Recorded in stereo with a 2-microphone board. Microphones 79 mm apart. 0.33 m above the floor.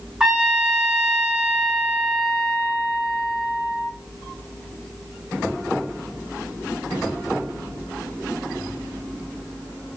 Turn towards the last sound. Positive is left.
turn(degrees=-10)  # may be behind; listen again after turning